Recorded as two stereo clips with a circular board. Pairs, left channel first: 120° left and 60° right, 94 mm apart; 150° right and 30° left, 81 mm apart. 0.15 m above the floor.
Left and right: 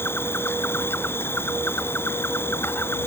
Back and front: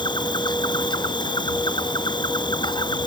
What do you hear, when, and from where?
0.0 s an insect: 175° right